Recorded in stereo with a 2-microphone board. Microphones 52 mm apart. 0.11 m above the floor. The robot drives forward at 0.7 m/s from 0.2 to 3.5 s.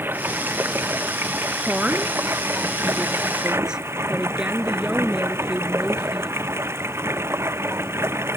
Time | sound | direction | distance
0.0 | running water | 45° right (ahead or behind) | ?
1.6 | a woman speaking | 20° right (ahead or behind) | ?